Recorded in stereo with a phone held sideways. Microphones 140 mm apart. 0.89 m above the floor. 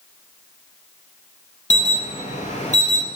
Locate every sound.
1.7 s an alarm: 55° left (ahead or behind), 0.6 m